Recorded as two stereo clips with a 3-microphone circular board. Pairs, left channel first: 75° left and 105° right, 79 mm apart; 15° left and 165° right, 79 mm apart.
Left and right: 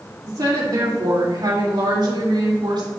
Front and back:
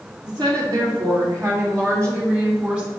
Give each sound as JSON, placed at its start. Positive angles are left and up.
{"t": 0.2, "sound": "a woman speaking", "azimuth_deg": -140, "distance_m": 3.5}